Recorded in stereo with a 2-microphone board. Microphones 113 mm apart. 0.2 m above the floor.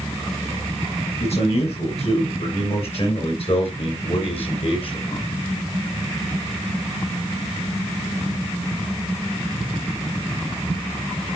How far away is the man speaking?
About 5 m.